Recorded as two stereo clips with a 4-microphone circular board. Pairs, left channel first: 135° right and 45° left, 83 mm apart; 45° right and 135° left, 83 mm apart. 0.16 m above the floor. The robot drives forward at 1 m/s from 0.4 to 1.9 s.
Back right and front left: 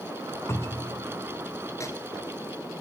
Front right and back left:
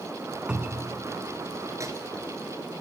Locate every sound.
0.5 s a cupboard door: 155° right, 1.8 m; by 1.0 s 165° right, 2 m
1.8 s a microwave: straight behind, 2 m